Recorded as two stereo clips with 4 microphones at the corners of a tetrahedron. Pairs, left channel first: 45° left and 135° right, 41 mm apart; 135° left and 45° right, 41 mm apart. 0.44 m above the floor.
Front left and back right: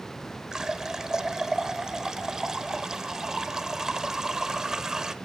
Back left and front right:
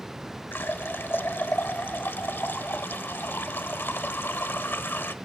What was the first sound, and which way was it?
A running tap, 150° left.